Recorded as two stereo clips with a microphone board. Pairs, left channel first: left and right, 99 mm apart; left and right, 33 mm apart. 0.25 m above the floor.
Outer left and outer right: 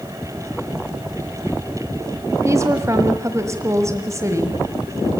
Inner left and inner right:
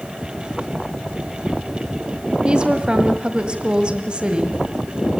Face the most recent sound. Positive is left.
turn(degrees=-30)  # may be behind; listen again after turning